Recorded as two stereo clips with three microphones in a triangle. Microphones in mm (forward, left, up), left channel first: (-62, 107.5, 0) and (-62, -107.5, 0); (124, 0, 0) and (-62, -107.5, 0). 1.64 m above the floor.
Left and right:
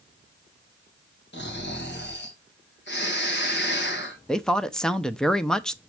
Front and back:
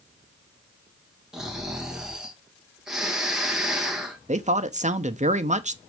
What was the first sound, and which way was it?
Snoring, 125° left.